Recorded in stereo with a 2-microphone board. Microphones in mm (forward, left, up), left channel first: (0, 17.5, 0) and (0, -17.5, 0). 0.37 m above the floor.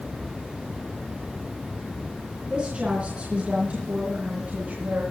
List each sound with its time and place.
2.5 s a woman speaking: 25° right (ahead or behind), 4 m; by 5.0 s 50° right (ahead or behind), 4.5 m